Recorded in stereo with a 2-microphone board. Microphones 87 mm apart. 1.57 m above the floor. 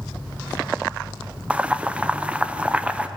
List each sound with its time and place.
1.5 s boiling: 15° right (ahead or behind), 0.7 m